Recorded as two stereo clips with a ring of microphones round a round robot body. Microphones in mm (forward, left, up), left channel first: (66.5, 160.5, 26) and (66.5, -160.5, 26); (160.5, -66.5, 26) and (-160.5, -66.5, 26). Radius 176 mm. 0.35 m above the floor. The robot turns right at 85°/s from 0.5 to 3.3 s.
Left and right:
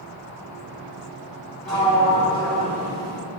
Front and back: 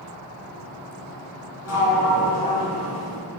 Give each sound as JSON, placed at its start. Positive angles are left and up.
{"t": 1.6, "sound": "a sliding door", "azimuth_deg": 0, "distance_m": 0.9}